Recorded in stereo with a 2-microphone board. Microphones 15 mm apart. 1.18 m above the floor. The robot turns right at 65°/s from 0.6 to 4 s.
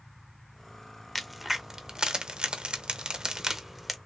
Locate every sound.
1.1 s a crack: 5° left (ahead or behind), 0.6 m; by 4.0 s 5° right (ahead or behind), 0.6 m